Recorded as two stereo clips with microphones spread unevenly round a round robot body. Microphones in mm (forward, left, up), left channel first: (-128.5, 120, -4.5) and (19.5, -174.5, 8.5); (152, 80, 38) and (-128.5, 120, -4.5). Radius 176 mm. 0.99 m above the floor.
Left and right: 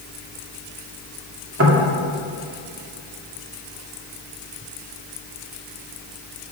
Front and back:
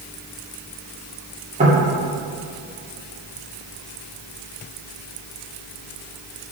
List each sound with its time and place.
1.6 s knocking: 115° right, 2.5 m